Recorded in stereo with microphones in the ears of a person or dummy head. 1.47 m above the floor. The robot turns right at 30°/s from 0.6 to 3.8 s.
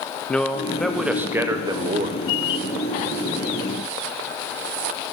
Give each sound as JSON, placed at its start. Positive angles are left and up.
{"t": 0.3, "sound": "a man speaking", "azimuth_deg": 180, "distance_m": 0.7}